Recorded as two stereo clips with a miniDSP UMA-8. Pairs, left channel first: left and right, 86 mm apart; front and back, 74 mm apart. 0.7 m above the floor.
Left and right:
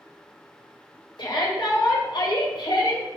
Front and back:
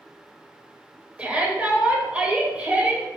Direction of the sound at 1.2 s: 110° left.